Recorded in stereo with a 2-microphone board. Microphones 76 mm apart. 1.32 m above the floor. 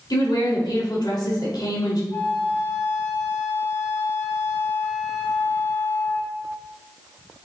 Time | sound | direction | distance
0.1 | a woman speaking | 80° left | 3 m
2.1 | a flute | 25° left (ahead or behind) | 3 m